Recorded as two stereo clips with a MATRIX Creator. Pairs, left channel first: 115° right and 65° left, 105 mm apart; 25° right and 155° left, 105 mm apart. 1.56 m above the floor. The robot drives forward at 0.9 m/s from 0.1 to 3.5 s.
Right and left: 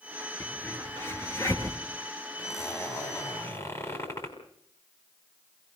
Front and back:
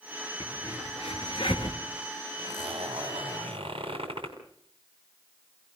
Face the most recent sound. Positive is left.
turn(degrees=-170)